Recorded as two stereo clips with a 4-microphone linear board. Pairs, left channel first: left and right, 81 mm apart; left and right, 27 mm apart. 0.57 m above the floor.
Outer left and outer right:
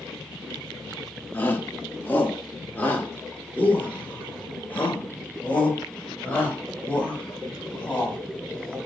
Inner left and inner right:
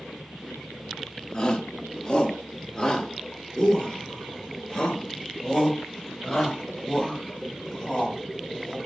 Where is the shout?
25° left (ahead or behind), 1.0 m; by 8.8 s 20° left (ahead or behind), 4.5 m.